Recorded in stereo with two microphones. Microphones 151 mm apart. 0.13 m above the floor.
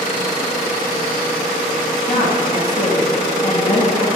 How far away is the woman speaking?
About 2.5 m.